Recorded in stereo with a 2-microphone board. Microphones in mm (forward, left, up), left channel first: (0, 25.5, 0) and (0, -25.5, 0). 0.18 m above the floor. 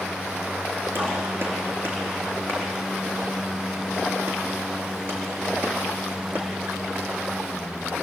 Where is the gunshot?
45° right (ahead or behind), 5 m.